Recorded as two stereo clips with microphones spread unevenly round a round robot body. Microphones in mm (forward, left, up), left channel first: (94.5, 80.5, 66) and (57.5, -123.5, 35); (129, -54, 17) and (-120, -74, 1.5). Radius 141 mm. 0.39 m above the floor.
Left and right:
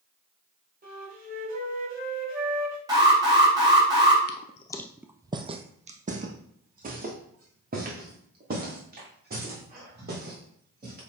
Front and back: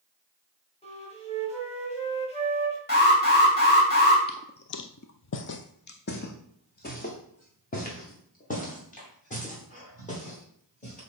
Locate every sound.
0.8 s a flute: 60° right, 3 m
2.9 s an alarm: 40° right, 3.5 m
4.3 s footsteps: 70° left, 0.5 m; by 11.0 s 55° right, 4.5 m